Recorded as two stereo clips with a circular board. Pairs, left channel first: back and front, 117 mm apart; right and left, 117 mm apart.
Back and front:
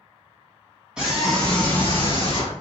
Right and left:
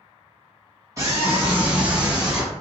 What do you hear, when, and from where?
1.0 s a scream: 70° left, 1.2 m; by 2.5 s 175° left, 1.4 m